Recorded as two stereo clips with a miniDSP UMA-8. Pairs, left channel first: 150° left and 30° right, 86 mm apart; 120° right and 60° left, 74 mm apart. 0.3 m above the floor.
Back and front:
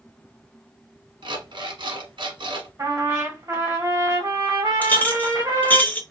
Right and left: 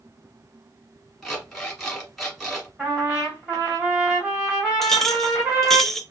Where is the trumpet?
10° right, 1.9 m.